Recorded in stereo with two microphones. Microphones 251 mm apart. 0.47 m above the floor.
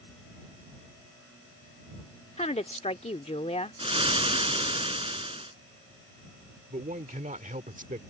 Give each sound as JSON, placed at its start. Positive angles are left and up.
{"t": 2.4, "sound": "a woman speaking", "side_deg": 25}
{"t": 3.8, "sound": "frying", "side_deg": -20}
{"t": 6.7, "sound": "a man speaking", "side_deg": -30}